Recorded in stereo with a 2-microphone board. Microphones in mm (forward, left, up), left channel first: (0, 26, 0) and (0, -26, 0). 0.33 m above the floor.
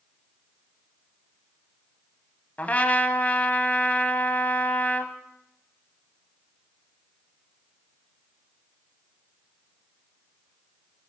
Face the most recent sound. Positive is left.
turn(degrees=35)  # may be behind; listen again after turning